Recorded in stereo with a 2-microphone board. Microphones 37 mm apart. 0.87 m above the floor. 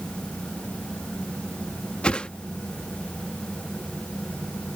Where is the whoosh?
30° left (ahead or behind).